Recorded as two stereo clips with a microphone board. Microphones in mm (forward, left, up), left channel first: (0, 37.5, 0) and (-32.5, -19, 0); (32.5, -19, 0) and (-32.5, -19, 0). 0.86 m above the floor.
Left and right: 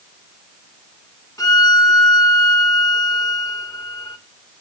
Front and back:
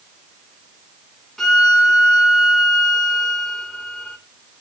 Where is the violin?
90° left, 2 m.